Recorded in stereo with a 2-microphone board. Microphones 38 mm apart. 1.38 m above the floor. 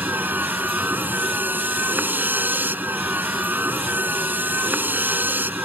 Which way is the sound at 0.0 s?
55° right (ahead or behind).